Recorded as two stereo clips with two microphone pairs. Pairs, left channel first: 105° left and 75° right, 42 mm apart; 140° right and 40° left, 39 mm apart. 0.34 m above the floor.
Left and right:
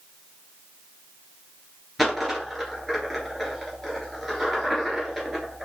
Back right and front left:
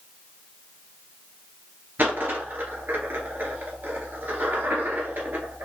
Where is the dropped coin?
10° left, 1.7 m.